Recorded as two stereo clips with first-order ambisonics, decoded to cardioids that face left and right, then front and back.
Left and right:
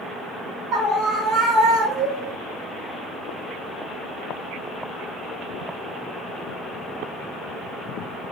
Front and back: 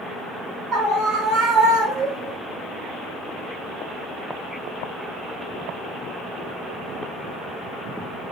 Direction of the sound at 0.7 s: 145° right.